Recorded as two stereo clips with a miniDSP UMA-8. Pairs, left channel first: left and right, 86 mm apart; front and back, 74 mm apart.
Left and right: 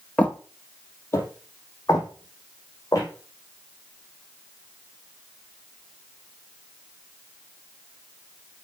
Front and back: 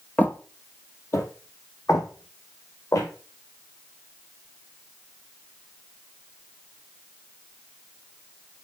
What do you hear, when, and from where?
0.2 s footsteps: 40° left, 1.3 m